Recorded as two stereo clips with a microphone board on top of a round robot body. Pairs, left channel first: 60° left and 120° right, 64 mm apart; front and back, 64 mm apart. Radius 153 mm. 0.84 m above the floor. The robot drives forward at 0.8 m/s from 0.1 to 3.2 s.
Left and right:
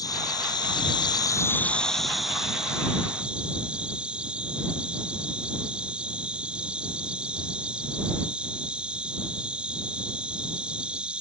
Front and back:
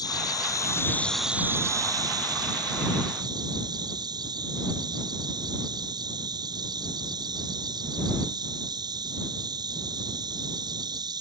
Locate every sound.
0.0 s an insect: 25° left; by 11.2 s 165° left